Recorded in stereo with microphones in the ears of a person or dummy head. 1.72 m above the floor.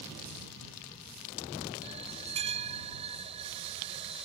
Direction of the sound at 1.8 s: 30° right (ahead or behind).